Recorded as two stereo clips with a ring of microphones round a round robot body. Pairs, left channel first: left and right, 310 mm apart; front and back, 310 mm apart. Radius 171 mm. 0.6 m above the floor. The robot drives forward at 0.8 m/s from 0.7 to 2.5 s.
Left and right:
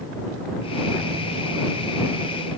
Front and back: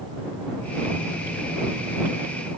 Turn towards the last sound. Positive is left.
No sound to turn to.